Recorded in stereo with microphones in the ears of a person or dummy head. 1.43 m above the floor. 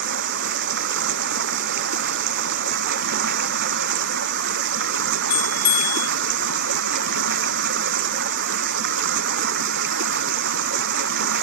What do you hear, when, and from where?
0.0 s running water: 60° right (ahead or behind)
5.3 s a bell: 20° left (ahead or behind)